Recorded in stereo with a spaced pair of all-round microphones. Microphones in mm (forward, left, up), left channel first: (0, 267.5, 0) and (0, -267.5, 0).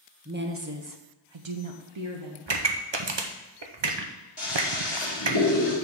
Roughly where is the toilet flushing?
Left.